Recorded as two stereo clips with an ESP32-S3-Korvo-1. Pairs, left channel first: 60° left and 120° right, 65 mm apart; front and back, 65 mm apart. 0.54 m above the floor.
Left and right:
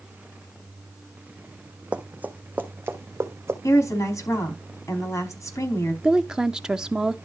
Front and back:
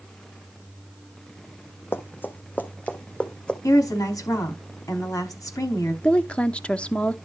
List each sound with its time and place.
1.9 s running footsteps: 50° right, 1.5 m; by 3.5 s 75° right, 2 m
3.6 s a woman speaking: 20° left, 4.5 m
6.0 s a woman speaking: 50° right, 0.7 m